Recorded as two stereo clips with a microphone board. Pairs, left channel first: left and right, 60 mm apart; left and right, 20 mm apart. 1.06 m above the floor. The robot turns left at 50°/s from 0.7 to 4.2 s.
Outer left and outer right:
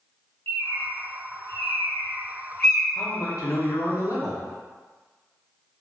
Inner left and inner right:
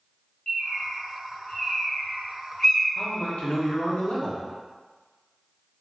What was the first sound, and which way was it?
A bird, 40° left (ahead or behind).